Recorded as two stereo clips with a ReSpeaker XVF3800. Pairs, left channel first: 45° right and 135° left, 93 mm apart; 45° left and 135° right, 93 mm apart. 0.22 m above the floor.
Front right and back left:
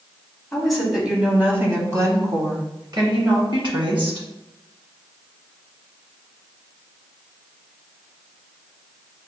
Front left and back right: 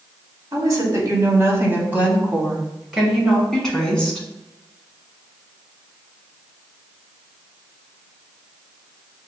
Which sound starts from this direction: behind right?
A woman speaking, at 0.5 s.